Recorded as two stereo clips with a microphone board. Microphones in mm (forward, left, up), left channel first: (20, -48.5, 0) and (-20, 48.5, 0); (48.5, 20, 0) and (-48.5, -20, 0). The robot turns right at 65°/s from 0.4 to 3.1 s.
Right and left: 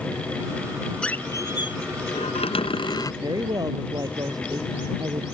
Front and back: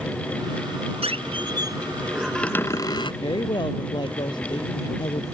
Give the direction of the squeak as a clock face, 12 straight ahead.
5 o'clock.